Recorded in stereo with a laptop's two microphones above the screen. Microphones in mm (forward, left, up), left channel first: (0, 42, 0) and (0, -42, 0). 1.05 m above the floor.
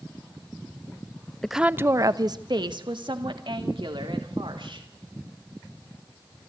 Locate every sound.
1.4 s a woman speaking: 5° left (ahead or behind), 0.6 m; by 4.9 s 75° right (ahead or behind), 3.5 m